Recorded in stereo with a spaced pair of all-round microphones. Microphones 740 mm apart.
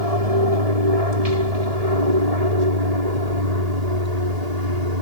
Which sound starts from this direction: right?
An aircraft, at 0.0 s.